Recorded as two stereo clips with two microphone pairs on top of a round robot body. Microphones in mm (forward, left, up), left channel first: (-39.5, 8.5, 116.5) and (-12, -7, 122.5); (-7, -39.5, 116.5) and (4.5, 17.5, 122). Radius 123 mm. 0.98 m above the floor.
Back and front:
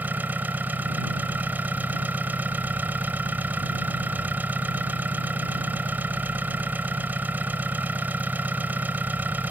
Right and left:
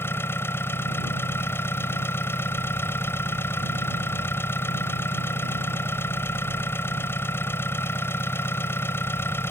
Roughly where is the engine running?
Ahead right.